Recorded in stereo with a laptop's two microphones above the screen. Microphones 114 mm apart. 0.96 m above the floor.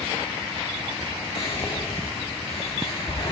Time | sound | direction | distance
1.4 | whispering | 55° left (ahead or behind) | 2 m